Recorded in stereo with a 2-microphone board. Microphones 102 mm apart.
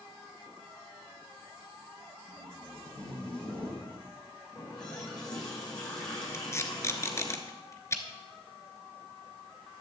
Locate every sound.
2.3 s tape being pulled: 10° left (ahead or behind), 4 m
4.5 s a running tap: 45° left (ahead or behind), 4.5 m
6.3 s tape being pulled: 30° left (ahead or behind), 1.0 m